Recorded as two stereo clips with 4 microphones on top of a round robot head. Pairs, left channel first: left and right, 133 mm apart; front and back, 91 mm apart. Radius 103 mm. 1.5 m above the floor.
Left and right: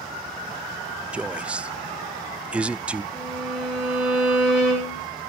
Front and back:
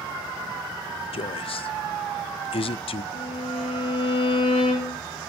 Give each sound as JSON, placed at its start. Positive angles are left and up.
{"t": 1.1, "sound": "a man speaking", "azimuth_deg": -10, "distance_m": 0.5}
{"t": 3.1, "sound": "a violin", "azimuth_deg": -10, "distance_m": 9.0}